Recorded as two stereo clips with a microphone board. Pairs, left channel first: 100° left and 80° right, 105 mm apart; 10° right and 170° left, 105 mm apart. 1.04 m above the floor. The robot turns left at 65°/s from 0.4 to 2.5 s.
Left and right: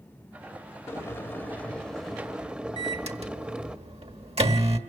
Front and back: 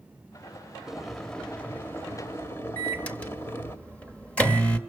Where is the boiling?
90° left, 0.8 m; by 3.8 s 15° right, 0.8 m.